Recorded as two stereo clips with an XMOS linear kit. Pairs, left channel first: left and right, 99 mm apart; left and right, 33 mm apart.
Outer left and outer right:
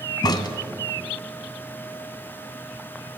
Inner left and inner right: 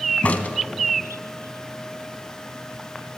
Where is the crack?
45° left (ahead or behind), 1.5 m.